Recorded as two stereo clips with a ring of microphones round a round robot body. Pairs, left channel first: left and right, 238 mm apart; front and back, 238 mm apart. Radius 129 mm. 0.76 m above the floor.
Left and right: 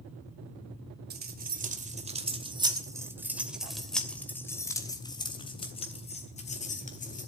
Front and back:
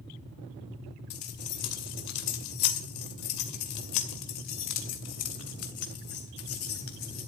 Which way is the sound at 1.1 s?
40° right.